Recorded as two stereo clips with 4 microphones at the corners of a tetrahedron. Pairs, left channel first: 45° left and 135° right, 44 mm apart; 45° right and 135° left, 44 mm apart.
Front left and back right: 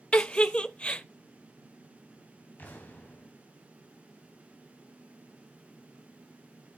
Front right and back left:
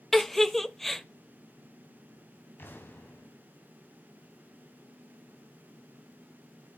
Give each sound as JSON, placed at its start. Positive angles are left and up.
{"t": 0.1, "sound": "a giggle", "azimuth_deg": 35, "distance_m": 0.5}
{"t": 2.6, "sound": "an explosion", "azimuth_deg": -5, "distance_m": 3.0}